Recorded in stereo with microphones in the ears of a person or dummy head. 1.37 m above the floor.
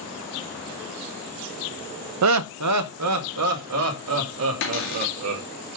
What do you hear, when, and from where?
2.2 s laughter: 70° right (ahead or behind), 0.6 m; by 5.4 s 75° right (ahead or behind), 3.5 m
4.6 s a cupboard door: 60° left (ahead or behind), 2 m